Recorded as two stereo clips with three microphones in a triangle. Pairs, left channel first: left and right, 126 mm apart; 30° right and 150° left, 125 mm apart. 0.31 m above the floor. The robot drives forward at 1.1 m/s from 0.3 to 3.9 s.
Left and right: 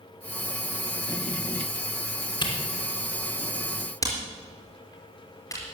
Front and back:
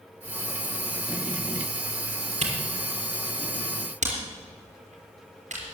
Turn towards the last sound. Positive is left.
turn(degrees=150)